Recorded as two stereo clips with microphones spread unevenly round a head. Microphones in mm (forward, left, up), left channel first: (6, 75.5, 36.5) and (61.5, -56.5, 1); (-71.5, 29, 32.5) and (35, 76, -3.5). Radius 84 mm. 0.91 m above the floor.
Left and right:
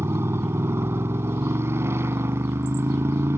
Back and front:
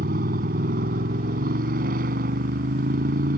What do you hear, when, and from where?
0.0 s a motorcycle: 10° left